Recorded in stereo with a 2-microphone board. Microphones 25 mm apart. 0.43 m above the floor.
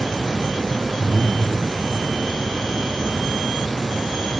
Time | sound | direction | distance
1.0 | breathing | 15° right (ahead or behind) | 3 m